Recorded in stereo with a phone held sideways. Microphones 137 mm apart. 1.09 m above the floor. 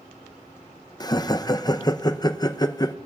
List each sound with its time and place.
1.0 s laughter: 30° left (ahead or behind), 0.6 m